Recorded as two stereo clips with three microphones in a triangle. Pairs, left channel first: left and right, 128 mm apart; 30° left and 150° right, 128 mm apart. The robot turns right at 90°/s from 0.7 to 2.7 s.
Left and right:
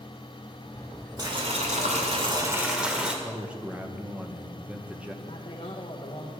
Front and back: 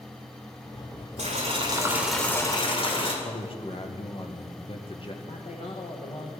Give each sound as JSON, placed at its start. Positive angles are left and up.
{"t": 1.2, "sound": "boiling", "azimuth_deg": -145, "distance_m": 2.0}
{"t": 3.2, "sound": "a man speaking", "azimuth_deg": -10, "distance_m": 1.4}
{"t": 5.2, "sound": "a man speaking", "azimuth_deg": 55, "distance_m": 1.3}